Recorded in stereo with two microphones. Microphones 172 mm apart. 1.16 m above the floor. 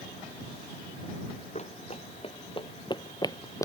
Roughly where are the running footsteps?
Left.